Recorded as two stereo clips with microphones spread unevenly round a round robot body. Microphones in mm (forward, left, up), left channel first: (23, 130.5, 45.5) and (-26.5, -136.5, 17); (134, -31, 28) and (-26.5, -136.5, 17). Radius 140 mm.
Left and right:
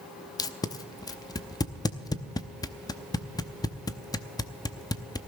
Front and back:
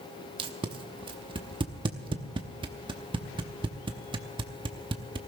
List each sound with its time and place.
0.4 s tape being pulled: 160° left, 0.7 m